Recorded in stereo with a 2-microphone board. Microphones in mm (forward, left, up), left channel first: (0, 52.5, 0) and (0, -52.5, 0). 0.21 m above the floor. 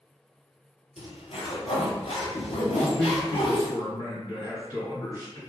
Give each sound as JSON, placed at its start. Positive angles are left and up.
{"t": 1.0, "sound": "a zipper", "side_deg": 85, "distance_m": 0.9}
{"t": 2.7, "sound": "a man speaking", "side_deg": 30, "distance_m": 1.8}